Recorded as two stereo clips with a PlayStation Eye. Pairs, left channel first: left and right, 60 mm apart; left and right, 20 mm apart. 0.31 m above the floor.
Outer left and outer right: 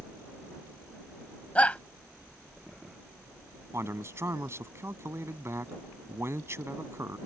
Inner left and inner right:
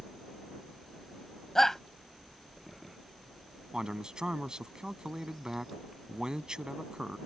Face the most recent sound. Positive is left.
turn(degrees=-50)  # may be behind; listen again after turning